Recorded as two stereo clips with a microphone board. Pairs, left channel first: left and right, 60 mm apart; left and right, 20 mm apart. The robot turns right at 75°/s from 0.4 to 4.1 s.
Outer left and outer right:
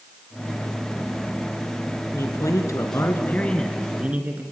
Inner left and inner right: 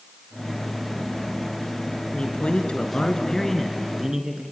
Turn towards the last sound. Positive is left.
turn(degrees=-155)